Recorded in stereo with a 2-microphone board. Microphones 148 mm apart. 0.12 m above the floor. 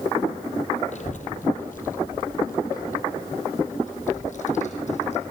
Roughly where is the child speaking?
Left.